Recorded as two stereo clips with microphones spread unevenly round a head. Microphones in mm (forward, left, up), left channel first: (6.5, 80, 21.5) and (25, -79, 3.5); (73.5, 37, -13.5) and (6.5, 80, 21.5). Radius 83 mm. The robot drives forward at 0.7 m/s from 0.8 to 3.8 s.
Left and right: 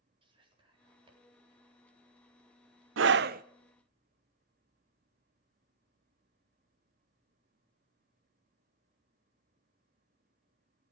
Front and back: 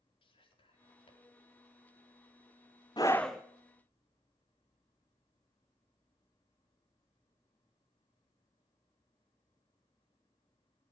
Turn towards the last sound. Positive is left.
turn(degrees=-145)